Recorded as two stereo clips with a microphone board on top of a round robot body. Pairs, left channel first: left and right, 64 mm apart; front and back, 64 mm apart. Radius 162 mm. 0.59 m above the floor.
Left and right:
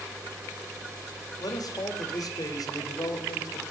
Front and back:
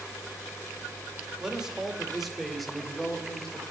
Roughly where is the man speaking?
Left.